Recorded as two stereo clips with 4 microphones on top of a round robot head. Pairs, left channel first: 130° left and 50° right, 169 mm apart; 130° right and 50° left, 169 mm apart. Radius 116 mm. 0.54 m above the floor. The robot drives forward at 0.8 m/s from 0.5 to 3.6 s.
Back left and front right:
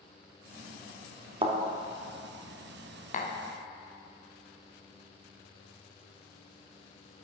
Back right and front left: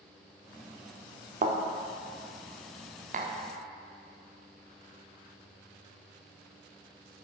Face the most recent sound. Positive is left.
turn(degrees=115)